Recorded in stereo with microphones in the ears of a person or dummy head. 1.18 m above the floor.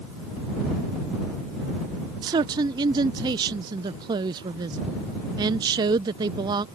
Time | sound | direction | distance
2.2 | a man speaking | 20° right (ahead or behind) | ?